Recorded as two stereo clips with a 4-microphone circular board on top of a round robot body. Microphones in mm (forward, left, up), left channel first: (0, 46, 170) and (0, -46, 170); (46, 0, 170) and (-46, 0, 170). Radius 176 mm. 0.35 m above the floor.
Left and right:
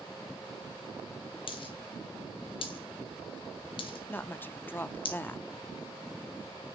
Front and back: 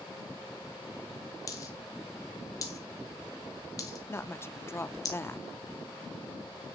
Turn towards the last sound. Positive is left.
turn(degrees=40)